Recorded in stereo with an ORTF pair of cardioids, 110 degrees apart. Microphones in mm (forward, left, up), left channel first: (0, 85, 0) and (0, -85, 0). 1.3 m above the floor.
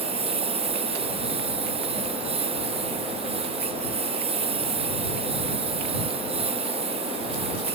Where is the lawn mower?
35° right.